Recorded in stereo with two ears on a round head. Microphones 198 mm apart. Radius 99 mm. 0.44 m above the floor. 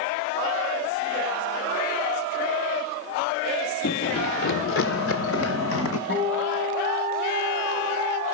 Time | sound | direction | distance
3.8 | running footsteps | 55° left (ahead or behind) | 0.7 m
6.1 | a guitar | 75° left (ahead or behind) | 6 m